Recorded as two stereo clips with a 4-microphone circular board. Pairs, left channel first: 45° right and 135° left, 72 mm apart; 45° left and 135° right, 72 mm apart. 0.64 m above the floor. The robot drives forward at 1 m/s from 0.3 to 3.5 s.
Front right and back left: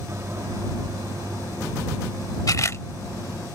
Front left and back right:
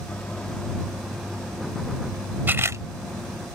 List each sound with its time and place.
0.1 s a microwave: 110° left; by 3.5 s 170° left
2.5 s a camera shutter: 75° right; by 2.8 s 95° right